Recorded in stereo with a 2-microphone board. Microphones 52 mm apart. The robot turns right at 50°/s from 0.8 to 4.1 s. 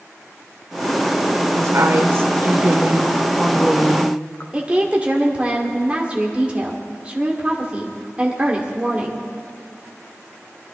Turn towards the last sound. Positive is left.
turn(degrees=-20)  # may be behind; listen again after turning